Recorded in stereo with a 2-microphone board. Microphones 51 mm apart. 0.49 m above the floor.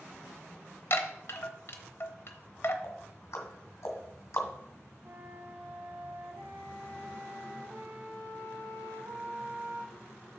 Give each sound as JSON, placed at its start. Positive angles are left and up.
{"t": 0.9, "sound": "a chime", "side_deg": 55, "distance_m": 0.9}
{"t": 2.8, "sound": "ticking", "side_deg": 70, "distance_m": 1.7}
{"t": 5.0, "sound": "a flute", "side_deg": -55, "distance_m": 1.7}